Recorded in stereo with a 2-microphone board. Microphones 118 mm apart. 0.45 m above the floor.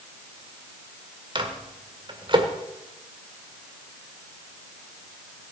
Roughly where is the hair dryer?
I don't hear a hair dryer.